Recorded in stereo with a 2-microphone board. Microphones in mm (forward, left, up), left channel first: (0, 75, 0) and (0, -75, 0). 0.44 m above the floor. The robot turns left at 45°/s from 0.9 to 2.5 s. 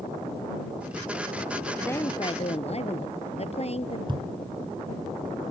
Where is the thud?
35° right (ahead or behind).